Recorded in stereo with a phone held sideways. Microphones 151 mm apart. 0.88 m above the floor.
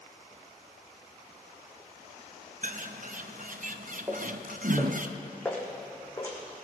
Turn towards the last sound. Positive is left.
turn(degrees=20)  # may be behind; listen again after turning